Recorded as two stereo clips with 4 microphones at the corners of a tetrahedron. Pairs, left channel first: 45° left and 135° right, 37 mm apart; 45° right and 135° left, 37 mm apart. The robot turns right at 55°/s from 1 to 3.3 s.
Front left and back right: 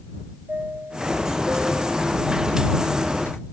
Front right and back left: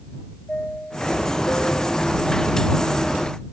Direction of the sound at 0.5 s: 100° right.